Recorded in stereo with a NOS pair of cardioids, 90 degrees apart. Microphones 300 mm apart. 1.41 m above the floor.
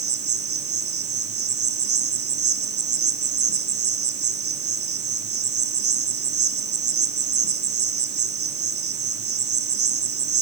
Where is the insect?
50° right, 2.5 m.